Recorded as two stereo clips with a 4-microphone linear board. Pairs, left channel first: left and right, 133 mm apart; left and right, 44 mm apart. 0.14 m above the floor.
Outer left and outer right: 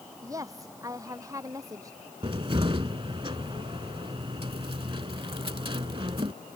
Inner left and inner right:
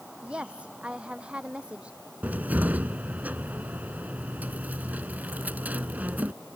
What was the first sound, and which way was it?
A woman speaking, 25° right (ahead or behind).